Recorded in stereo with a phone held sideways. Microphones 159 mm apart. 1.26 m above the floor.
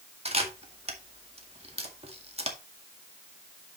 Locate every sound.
0.2 s a camera shutter: 40° right (ahead or behind), 1.9 m